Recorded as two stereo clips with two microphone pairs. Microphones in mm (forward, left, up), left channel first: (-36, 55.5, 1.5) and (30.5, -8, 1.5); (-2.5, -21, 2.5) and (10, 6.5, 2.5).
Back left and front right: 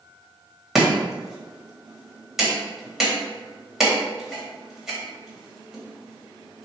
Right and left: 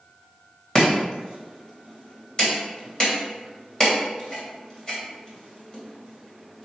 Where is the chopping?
125° right, 1.6 m.